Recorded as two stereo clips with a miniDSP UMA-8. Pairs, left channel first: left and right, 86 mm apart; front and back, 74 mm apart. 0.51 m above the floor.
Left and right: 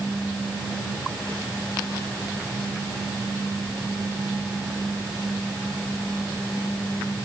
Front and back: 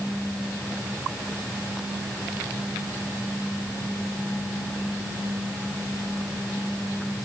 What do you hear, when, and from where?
Only background noise.